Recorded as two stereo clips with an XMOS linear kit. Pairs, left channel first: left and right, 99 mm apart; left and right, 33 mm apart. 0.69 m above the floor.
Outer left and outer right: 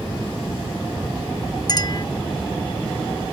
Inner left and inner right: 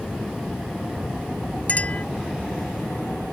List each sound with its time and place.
1.7 s a clink: 45° left (ahead or behind)